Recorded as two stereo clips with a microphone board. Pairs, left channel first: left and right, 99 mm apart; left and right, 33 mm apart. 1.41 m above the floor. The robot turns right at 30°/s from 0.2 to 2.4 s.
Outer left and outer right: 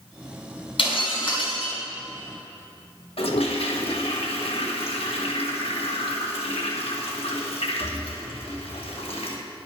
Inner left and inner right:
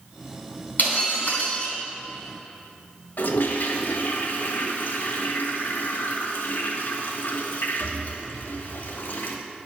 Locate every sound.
0.8 s breaking glass: 65° left (ahead or behind), 2.5 m; by 1.8 s 50° left (ahead or behind), 2.5 m
3.2 s a toilet flushing: 80° left, 1.2 m